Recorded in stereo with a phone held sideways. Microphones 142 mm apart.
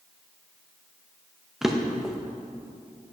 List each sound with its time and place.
1.6 s a drawer: 5° right (ahead or behind), 0.8 m